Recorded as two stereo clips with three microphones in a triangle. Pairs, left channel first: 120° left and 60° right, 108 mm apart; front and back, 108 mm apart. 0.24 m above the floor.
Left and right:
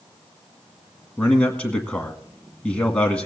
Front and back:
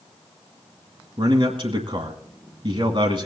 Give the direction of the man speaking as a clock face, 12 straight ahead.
5 o'clock.